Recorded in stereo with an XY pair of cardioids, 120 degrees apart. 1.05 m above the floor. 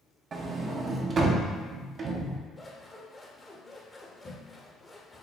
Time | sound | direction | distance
0.3 | a sliding door | 40° right | 0.7 m
2.6 | scissors | 15° left | 0.9 m